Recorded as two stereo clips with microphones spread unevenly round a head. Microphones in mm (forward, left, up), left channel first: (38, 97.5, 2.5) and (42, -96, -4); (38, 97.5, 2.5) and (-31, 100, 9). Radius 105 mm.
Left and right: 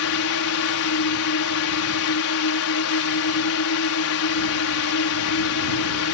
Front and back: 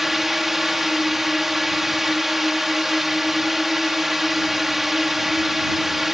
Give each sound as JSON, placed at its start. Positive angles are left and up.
{"t": 0.0, "sound": "a drone", "azimuth_deg": 95}